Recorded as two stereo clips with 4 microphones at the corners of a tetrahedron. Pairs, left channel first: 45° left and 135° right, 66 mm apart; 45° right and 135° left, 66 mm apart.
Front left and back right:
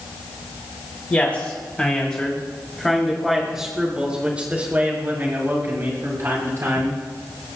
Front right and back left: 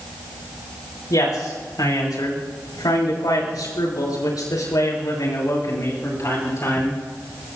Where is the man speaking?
20° right, 7.5 m; by 7.0 s 95° right, 7.5 m.